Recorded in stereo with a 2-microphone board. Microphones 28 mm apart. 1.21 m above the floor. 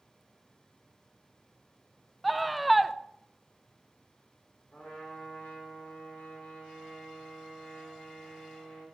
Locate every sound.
2.2 s a scream: centre (ahead or behind), 0.6 m
4.7 s a trumpet: 75° left (ahead or behind), 5 m